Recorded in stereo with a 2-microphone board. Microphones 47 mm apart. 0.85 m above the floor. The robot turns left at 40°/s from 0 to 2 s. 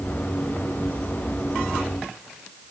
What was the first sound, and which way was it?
Only background noise.